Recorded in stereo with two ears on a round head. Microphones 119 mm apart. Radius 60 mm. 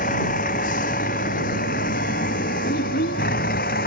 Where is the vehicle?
60° left (ahead or behind); by 3.9 s 70° left (ahead or behind).